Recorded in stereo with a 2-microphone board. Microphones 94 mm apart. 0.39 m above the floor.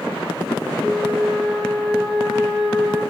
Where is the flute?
Centre (ahead or behind), 2.5 m.